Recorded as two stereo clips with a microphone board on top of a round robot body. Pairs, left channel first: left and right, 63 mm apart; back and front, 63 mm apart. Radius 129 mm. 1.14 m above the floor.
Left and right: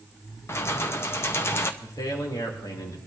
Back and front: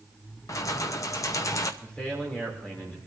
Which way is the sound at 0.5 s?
145° left.